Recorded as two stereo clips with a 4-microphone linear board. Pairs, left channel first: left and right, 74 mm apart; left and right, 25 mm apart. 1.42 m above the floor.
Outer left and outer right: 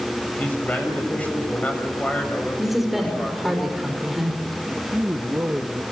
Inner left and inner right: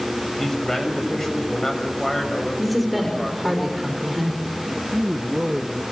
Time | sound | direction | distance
0.4 | a man speaking | 20° left (ahead or behind) | 6 m
2.6 | a woman speaking | 5° right (ahead or behind) | 5.5 m
4.9 | a man speaking | 25° right (ahead or behind) | 1.3 m